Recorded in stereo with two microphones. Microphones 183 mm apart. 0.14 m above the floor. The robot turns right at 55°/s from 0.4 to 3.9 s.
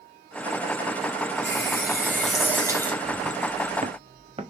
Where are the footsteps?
30° right (ahead or behind), 0.6 m.